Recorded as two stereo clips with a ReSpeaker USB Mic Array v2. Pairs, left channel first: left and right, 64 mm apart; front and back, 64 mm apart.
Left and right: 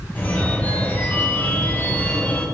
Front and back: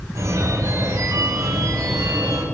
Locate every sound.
0.1 s a phone ringing: 155° left, 3 m